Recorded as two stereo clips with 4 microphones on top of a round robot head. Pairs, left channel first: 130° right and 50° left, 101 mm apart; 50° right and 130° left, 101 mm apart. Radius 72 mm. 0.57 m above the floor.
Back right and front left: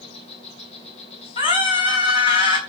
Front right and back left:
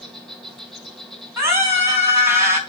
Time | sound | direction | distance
0.0 | an insect | 140° right | 3.5 m
1.4 | a scream | 165° right | 5 m